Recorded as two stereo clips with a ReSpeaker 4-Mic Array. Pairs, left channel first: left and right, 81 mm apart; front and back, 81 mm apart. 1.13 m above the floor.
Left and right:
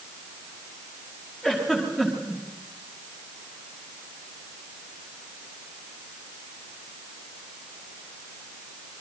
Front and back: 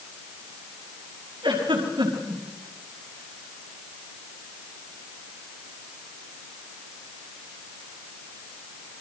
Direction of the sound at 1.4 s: 175° right.